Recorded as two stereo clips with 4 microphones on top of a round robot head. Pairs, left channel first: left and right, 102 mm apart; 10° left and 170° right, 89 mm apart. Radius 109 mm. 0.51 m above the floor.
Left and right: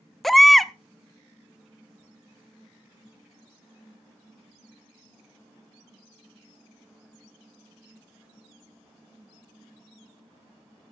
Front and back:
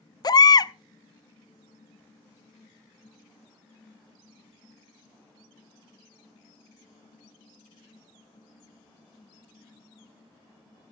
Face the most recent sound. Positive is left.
turn(degrees=0)